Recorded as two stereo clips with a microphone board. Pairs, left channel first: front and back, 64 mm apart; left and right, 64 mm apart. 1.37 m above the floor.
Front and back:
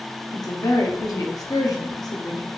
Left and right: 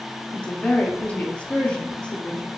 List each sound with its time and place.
0.3 s a woman speaking: 20° left, 0.9 m